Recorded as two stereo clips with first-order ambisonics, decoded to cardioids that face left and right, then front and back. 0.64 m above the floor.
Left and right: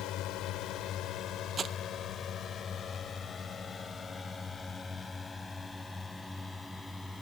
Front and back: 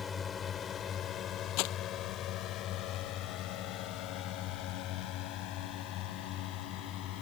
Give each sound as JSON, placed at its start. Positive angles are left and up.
{"t": 0.0, "sound": "a drone", "azimuth_deg": 70}
{"t": 1.6, "sound": "crumpling", "azimuth_deg": -20}